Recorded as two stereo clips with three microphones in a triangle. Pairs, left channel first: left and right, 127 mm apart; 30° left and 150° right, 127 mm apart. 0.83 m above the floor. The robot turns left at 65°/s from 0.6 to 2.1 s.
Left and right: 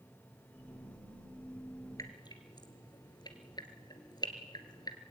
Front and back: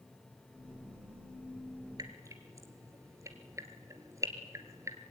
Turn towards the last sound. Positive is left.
turn(degrees=145)